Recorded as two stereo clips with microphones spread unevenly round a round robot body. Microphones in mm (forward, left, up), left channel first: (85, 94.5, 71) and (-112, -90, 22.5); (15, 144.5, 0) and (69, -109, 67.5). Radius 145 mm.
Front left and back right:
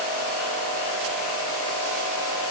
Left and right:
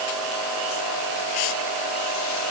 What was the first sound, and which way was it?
Only background noise.